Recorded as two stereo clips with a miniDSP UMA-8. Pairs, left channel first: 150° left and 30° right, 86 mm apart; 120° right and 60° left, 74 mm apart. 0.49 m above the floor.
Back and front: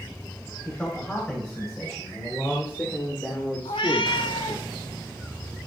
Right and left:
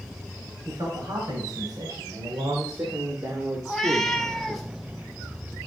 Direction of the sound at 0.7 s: 75° left.